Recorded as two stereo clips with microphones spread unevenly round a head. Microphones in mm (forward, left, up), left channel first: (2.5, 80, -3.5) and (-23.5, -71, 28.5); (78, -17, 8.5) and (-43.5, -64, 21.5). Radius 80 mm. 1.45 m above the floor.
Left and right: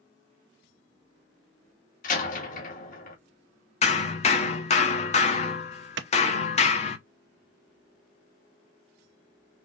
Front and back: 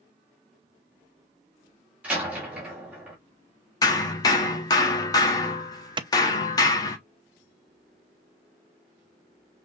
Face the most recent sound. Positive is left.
turn(degrees=-105)